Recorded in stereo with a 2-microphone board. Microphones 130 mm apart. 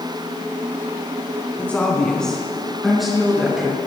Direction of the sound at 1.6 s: 10° left (ahead or behind).